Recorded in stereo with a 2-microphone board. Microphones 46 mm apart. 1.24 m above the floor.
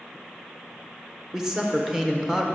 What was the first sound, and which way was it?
A man speaking, 10° right (ahead or behind).